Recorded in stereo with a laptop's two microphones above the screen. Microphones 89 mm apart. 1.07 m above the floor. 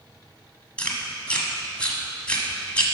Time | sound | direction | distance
0.8 | chewing | 15° left (ahead or behind) | 1.2 m